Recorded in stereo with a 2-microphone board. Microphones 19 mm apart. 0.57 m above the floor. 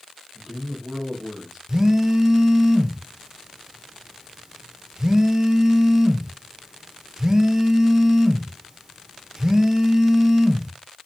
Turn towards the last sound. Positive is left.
turn(degrees=-30)  # may be behind; listen again after turning